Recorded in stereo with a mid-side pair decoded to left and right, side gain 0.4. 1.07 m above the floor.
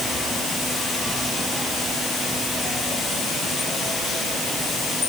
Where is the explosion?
I don't hear an explosion.